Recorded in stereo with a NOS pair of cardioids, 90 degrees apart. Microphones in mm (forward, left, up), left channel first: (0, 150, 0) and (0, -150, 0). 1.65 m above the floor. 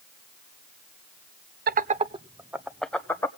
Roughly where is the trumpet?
No trumpet in this recording.